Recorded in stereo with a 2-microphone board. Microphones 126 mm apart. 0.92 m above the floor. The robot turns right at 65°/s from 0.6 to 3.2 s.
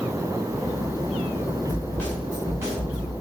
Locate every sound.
1.7 s a snare drum: 145° left, 1.8 m; by 3.1 s 120° right, 1.8 m